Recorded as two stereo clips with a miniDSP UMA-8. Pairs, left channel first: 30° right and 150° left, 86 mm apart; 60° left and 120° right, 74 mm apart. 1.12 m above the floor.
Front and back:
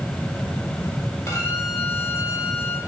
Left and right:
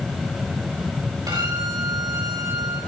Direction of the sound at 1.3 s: 90° right.